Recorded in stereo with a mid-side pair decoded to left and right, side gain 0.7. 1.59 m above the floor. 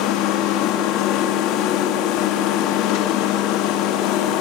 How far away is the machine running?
About 3 m.